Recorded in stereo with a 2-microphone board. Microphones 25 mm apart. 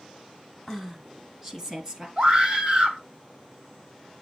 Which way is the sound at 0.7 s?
15° right (ahead or behind).